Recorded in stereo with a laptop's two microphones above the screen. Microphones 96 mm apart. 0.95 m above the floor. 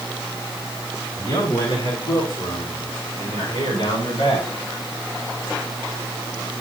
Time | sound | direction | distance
1.2 | a man speaking | 35° left (ahead or behind) | 8 m